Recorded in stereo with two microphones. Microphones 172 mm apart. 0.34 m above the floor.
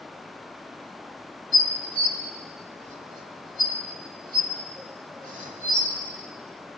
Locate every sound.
1.5 s dishes clattering: 50° right (ahead or behind), 1.2 m